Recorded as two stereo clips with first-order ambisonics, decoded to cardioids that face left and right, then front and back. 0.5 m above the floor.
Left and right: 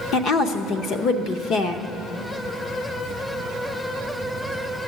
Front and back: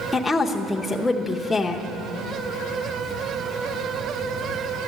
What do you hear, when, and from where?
0.1 s a woman speaking: 80° left, 0.8 m